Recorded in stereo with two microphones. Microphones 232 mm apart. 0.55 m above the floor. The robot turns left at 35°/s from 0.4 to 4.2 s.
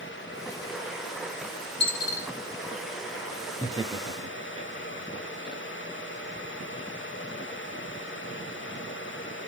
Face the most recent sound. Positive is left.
turn(degrees=-25)  # may be behind; listen again after turning